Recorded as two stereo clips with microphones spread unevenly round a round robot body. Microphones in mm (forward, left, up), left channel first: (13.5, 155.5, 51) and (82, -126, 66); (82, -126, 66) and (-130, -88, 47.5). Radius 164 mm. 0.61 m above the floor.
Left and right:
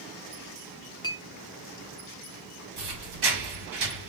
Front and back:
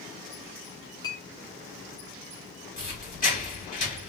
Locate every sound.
1.0 s a clink: 50° left, 0.6 m
2.8 s a squeak: 65° right, 1.7 m